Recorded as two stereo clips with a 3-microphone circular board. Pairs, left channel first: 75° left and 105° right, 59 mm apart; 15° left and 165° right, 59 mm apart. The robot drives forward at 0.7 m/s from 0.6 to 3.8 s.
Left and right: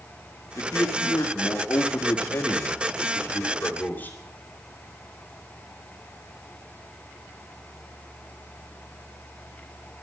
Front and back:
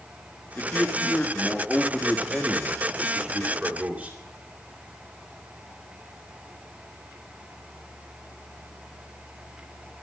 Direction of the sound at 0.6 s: 65° left.